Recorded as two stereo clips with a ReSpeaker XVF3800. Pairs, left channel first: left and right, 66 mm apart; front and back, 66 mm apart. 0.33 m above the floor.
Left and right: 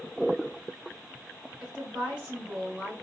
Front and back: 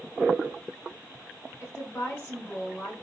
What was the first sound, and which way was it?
A woman speaking, 30° right.